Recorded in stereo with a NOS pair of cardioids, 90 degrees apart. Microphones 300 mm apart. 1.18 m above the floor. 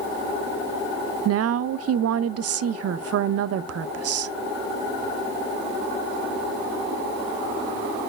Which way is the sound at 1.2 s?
55° right.